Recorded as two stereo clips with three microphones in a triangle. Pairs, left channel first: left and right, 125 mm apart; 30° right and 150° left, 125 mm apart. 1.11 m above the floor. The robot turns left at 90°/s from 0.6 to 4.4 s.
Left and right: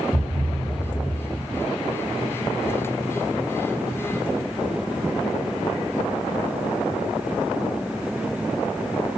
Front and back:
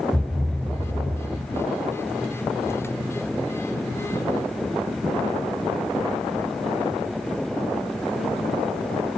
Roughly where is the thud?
Behind right.